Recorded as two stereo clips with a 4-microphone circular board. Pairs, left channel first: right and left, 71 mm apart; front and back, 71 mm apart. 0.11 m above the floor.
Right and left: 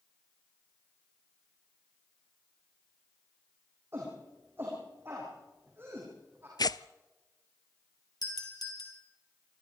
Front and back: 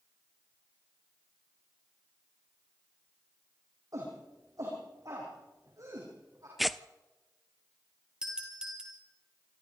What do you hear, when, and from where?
3.9 s a shout: 145° left, 7 m
6.6 s tearing paper: 90° right, 0.6 m
8.2 s a doorbell: 105° right, 4.5 m